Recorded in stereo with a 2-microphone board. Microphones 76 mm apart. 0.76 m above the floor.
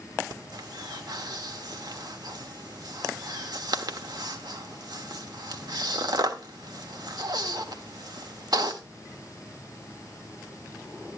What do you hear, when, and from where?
0.3 s breathing: 70° right (ahead or behind), 1.4 m